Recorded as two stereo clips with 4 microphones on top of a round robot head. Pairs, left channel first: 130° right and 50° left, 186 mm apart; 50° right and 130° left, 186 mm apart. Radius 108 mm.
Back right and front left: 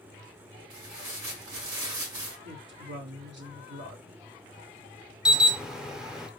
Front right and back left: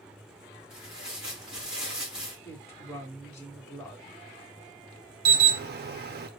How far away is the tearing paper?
About 2.5 m.